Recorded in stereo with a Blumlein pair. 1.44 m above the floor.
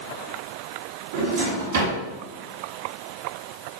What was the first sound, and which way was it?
A drawer, 60° right.